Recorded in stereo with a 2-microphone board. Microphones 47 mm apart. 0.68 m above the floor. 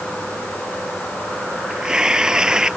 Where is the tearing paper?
15° right (ahead or behind).